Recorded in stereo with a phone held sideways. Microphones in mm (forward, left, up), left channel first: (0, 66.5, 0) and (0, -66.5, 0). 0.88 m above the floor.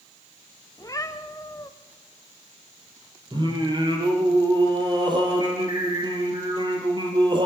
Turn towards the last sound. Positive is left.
turn(degrees=-35)  # may be behind; listen again after turning